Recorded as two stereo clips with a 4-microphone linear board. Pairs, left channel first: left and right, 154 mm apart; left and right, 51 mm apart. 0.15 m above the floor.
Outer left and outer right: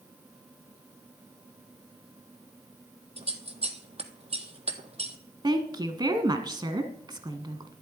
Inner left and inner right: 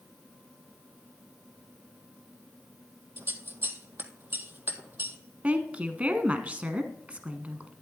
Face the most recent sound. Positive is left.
turn(degrees=-30)  # may be behind; listen again after turning